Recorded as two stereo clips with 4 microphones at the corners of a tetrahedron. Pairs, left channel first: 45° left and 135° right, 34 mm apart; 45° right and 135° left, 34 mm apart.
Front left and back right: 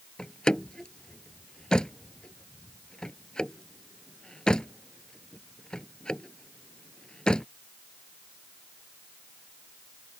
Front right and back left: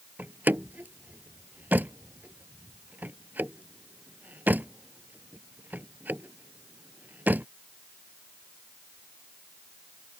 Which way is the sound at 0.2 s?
110° left.